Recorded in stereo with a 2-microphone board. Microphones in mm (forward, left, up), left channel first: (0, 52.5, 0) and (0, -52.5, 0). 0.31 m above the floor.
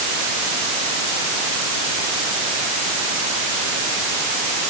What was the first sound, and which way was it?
Only background noise.